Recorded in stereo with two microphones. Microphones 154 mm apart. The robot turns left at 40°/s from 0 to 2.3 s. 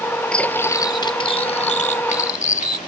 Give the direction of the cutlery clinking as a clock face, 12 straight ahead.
6 o'clock.